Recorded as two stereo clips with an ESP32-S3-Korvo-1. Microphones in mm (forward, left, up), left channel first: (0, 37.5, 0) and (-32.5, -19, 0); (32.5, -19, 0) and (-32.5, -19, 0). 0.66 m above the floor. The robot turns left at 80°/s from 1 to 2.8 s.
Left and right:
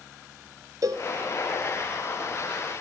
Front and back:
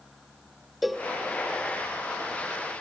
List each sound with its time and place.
0.8 s a cowbell: 90° right, 0.7 m; by 1.1 s 95° right, 0.7 m